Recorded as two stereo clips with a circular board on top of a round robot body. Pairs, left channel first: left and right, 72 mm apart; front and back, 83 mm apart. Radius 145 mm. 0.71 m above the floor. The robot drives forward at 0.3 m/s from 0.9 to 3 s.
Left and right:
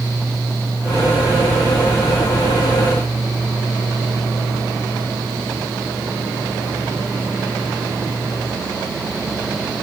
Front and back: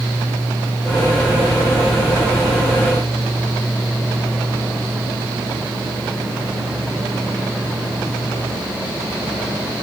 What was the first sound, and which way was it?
Only background noise.